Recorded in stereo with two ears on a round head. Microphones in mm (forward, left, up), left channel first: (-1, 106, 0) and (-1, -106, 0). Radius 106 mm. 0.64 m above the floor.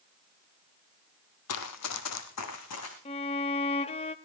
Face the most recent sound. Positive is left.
turn(degrees=25)  # may be behind; listen again after turning